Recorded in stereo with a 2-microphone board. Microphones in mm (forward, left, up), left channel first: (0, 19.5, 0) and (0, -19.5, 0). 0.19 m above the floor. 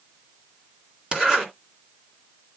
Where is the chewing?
I don't hear chewing.